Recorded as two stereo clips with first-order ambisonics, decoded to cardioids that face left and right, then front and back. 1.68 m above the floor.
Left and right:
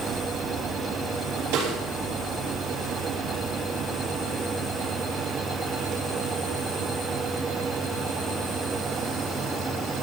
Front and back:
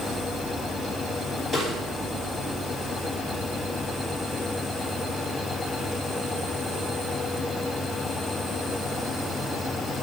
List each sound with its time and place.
1.5 s a snare drum: 95° right, 3 m